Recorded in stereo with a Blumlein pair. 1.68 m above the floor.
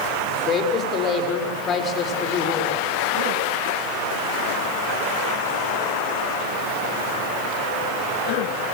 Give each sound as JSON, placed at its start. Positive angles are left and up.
{"t": 0.5, "sound": "a woman speaking", "azimuth_deg": 25, "distance_m": 6.5}